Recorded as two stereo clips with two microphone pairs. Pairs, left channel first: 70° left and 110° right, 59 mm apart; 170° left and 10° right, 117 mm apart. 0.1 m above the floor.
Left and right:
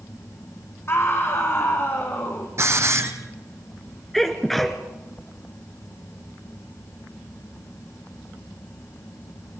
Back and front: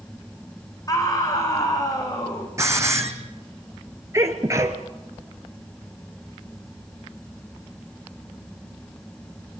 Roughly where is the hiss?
Right.